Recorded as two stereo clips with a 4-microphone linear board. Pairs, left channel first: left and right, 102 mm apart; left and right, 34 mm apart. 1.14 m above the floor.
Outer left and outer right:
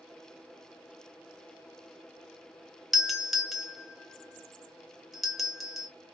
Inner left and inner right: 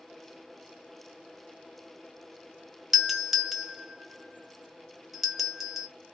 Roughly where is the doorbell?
Centre.